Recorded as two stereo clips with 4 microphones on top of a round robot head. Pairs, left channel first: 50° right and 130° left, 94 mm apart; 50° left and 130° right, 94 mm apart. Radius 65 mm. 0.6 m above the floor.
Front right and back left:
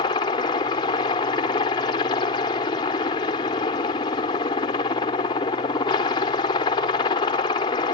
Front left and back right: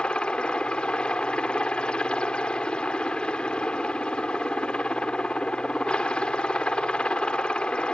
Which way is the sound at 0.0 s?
30° right.